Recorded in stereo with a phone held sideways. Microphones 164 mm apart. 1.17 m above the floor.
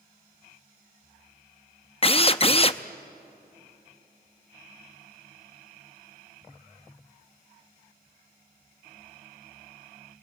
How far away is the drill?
About 0.6 m.